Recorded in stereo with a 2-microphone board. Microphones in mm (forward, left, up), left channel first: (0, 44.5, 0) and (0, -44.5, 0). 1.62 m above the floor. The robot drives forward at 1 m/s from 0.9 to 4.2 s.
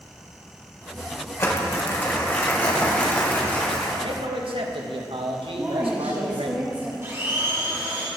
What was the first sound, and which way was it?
Crumpling, 35° left (ahead or behind).